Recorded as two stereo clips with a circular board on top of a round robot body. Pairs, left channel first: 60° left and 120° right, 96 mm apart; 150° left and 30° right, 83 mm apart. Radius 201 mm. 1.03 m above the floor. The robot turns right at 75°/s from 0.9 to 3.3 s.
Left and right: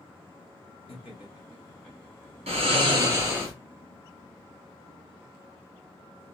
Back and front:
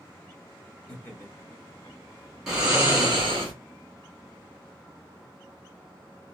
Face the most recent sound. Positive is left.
turn(degrees=-55)